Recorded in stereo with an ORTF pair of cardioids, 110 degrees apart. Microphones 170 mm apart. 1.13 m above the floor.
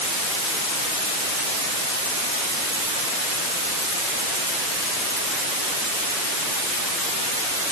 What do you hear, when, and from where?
Only background noise.